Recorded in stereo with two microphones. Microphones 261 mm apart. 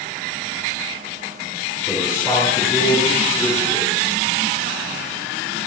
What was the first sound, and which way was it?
A man speaking, 5° right (ahead or behind).